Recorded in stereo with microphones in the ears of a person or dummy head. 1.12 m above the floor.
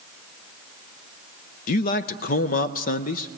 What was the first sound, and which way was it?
A man speaking, 45° left (ahead or behind).